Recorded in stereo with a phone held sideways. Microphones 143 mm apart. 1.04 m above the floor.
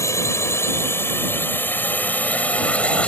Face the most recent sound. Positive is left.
turn(degrees=10)  # may be behind; listen again after turning